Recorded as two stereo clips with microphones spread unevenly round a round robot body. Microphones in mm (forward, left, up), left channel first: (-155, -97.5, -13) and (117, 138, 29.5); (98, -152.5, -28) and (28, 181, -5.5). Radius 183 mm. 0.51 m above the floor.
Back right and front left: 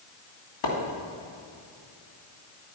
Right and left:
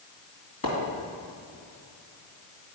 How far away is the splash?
About 2.5 m.